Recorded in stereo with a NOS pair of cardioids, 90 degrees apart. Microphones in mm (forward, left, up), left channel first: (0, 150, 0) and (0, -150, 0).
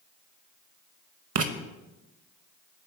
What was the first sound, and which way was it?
Writing, 55° right.